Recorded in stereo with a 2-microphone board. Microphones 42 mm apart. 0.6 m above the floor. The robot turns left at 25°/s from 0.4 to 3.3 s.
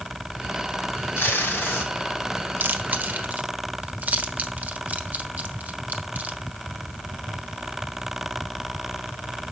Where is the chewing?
55° right (ahead or behind), 1.0 m; by 6.4 s 40° right (ahead or behind), 1.0 m.